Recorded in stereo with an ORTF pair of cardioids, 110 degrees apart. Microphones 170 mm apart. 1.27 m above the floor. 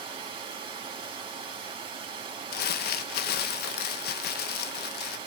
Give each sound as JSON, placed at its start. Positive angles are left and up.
{"t": 0.0, "sound": "running water", "azimuth_deg": -30, "distance_m": 3.5}
{"t": 2.5, "sound": "crumpling", "azimuth_deg": 60, "distance_m": 1.1}